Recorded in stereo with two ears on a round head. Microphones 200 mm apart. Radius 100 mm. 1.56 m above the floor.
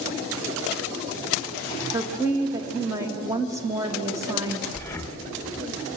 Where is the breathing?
15° left (ahead or behind), 1.4 m.